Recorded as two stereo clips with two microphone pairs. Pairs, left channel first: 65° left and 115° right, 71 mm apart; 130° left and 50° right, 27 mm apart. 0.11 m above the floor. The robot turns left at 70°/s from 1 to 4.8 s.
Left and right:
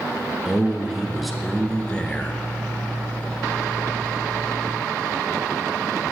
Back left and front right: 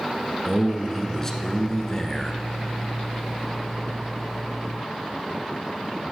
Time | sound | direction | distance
0.5 | a man speaking | straight behind | 1.1 m